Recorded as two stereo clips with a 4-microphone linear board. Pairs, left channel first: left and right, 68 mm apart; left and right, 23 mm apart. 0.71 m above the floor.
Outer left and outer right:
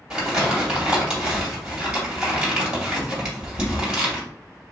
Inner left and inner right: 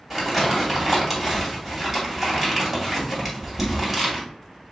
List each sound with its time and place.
0.1 s crumpling: 10° right (ahead or behind), 2 m